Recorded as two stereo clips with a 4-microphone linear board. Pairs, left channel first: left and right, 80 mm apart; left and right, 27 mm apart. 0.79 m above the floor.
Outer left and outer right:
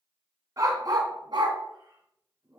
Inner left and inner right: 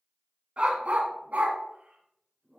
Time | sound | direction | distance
0.6 | a dog barking | 45° right (ahead or behind) | 1.6 m